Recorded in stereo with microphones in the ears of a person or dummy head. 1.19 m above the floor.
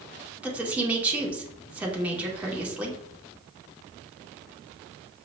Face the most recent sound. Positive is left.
turn(degrees=-5)  # may be behind; listen again after turning